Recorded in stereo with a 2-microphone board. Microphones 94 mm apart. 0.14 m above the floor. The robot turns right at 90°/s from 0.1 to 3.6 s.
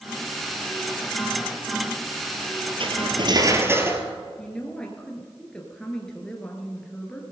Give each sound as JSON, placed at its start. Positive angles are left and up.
{"t": 2.8, "sound": "cutlery clinking", "azimuth_deg": -100, "distance_m": 1.5}
{"t": 4.4, "sound": "a woman speaking", "side_deg": 10, "distance_m": 2.0}